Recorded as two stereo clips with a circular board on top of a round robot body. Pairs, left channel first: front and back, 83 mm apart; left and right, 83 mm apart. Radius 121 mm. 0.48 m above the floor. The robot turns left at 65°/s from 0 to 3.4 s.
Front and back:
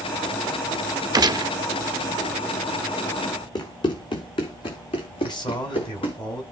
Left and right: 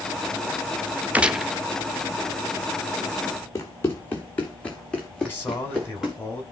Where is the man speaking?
30° left, 5.5 m.